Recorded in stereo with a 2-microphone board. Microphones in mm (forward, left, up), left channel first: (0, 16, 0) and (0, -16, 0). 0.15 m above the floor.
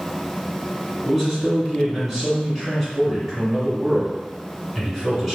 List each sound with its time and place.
1.1 s a man speaking: 5° right (ahead or behind), 1.8 m